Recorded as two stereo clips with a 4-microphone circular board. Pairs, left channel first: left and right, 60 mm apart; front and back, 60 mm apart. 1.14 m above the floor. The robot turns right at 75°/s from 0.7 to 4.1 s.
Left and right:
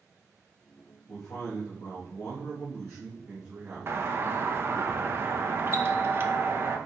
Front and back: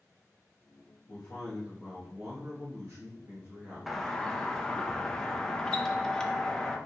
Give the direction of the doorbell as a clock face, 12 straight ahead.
3 o'clock.